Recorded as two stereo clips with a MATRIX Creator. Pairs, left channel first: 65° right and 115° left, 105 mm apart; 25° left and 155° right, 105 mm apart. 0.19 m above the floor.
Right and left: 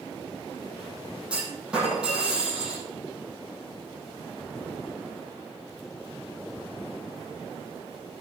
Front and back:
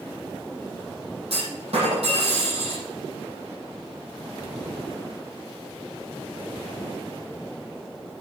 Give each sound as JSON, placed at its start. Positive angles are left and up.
{"t": 1.3, "sound": "a clunk", "azimuth_deg": -165, "distance_m": 5.5}